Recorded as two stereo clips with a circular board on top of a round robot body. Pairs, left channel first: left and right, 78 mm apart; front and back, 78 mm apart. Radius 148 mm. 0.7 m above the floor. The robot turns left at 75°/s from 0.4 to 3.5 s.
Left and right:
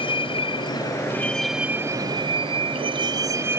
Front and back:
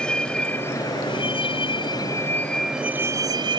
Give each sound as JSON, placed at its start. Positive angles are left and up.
{"t": 0.0, "sound": "a vehicle", "azimuth_deg": 80}